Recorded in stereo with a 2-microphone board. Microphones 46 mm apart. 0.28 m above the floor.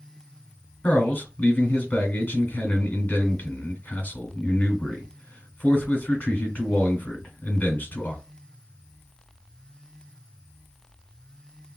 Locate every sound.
0.8 s a man speaking: 35° left (ahead or behind), 1.1 m